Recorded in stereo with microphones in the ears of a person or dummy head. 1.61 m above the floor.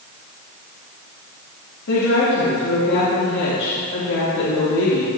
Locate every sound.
1.9 s a woman speaking: 80° left, 3 m